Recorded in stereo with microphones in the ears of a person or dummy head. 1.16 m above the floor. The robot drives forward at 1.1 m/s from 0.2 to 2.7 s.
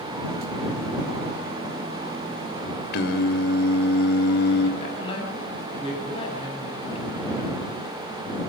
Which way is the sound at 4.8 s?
30° left (ahead or behind).